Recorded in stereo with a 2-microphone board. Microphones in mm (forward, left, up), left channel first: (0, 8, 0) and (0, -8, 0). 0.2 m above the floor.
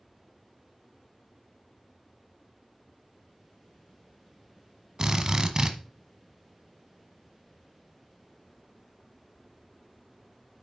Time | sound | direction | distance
5.0 | a drill | 35° right (ahead or behind) | 1.1 m